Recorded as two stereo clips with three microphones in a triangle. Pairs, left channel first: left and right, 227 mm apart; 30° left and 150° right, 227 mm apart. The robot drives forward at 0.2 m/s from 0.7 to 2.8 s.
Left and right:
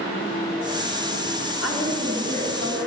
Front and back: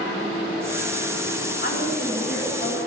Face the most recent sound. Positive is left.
turn(degrees=85)